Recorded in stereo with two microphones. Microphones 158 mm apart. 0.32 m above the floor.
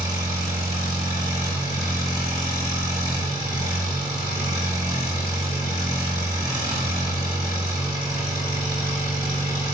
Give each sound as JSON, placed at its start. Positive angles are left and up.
{"t": 0.0, "sound": "an engine running", "side_deg": -25, "distance_m": 1.5}